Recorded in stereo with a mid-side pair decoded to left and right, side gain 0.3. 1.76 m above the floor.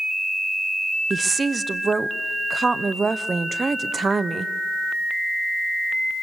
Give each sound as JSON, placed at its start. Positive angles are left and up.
{"t": 1.1, "sound": "a woman speaking", "azimuth_deg": -40, "distance_m": 1.1}